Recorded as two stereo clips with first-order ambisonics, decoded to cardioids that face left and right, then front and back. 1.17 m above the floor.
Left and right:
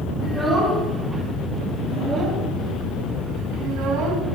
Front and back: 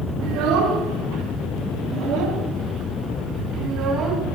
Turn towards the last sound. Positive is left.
turn(degrees=-120)